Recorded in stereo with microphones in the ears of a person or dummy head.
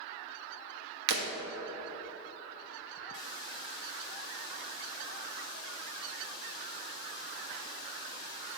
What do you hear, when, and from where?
1.1 s breaking glass: 60° right (ahead or behind), 1.2 m
3.1 s a hiss: 25° left (ahead or behind), 1.4 m